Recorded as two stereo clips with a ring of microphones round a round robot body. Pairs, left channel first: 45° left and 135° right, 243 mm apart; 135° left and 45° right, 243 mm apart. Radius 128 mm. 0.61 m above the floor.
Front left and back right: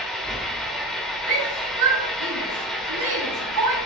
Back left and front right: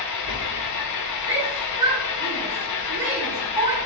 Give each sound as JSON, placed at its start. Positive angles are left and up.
{"t": 0.0, "sound": "an engine running", "azimuth_deg": 135, "distance_m": 1.1}
{"t": 1.3, "sound": "a shout", "azimuth_deg": -125, "distance_m": 3.5}